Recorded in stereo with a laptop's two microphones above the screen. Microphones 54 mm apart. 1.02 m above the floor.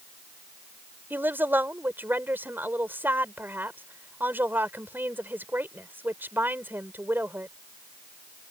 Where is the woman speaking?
40° right (ahead or behind).